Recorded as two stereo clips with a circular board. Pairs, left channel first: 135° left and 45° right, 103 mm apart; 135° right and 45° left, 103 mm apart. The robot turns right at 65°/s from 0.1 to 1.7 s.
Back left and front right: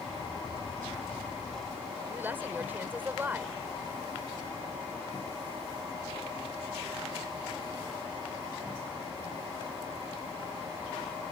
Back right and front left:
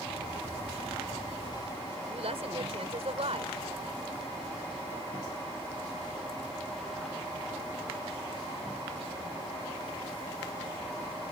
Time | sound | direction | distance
2.1 | a woman speaking | 25° left | ?